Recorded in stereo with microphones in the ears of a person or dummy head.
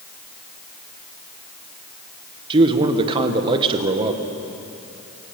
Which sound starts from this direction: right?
A man speaking, at 2.5 s.